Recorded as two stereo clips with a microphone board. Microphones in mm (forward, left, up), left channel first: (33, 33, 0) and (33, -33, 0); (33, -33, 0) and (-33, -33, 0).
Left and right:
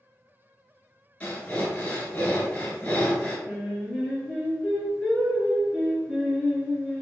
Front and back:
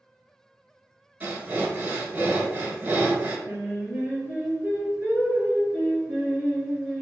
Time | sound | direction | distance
1.2 | breathing | 140° left | 0.7 m
3.5 | singing | 175° right | 1.3 m